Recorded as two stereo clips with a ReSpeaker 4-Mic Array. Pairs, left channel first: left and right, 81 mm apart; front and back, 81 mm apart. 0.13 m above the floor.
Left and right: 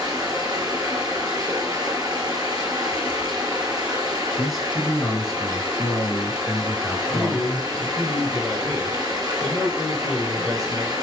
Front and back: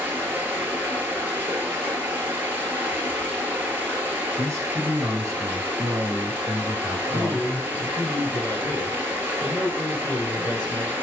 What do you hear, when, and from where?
0.0 s running water: 120° right, 1.2 m
4.4 s a man speaking: straight behind, 1.3 m
7.1 s a man speaking: 5° left, 2 m